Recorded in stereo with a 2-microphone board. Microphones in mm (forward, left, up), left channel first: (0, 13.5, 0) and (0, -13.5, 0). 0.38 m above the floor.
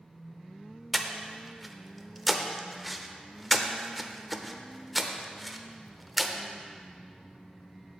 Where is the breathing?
5° right (ahead or behind), 0.6 m.